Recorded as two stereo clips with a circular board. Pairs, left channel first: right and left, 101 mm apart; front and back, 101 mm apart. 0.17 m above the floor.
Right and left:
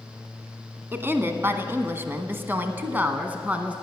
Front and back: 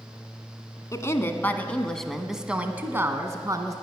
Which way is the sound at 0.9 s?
35° left.